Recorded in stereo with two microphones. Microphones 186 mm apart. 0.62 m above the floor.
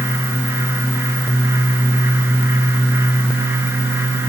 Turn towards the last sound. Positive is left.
No sound to turn to.